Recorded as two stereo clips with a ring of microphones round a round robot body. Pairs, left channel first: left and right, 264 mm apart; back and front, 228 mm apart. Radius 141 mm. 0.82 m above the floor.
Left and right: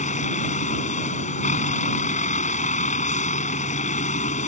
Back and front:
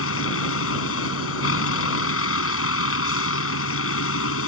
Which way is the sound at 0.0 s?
155° left.